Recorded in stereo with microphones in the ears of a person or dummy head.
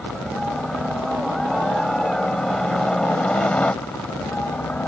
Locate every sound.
0.0 s a helicopter: 5° right (ahead or behind); by 4.9 s 5° left (ahead or behind)